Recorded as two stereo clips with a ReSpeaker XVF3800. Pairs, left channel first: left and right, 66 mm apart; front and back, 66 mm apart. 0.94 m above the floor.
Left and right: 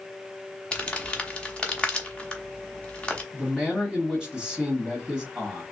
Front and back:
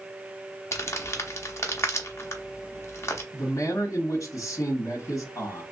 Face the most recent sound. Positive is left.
turn(degrees=-10)